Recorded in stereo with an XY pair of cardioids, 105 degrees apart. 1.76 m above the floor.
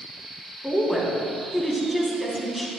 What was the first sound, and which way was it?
A woman speaking, 5° left.